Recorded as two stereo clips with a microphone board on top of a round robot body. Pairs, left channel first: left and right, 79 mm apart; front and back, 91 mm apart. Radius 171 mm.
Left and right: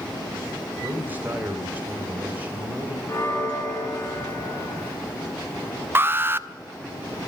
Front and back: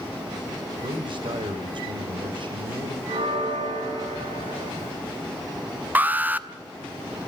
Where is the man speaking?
155° right, 3.5 m.